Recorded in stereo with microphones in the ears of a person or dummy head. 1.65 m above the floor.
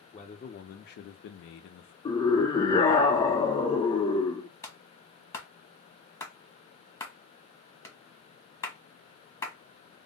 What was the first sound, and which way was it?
A man speaking, 30° left (ahead or behind).